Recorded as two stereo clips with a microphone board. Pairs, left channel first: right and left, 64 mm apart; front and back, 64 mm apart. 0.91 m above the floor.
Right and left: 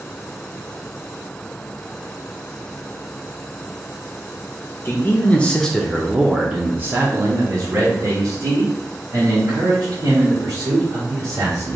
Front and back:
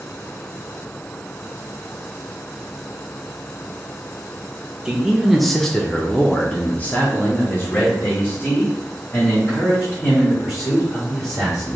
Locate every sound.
4.8 s a man speaking: 105° right, 0.9 m; by 11.8 s 60° left, 3 m